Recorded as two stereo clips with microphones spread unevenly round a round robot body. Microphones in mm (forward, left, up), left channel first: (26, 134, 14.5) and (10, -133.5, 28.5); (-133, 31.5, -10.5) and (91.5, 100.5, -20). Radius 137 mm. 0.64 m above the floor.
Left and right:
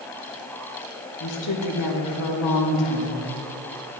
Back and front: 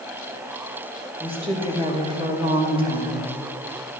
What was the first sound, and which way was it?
A woman speaking, 85° left.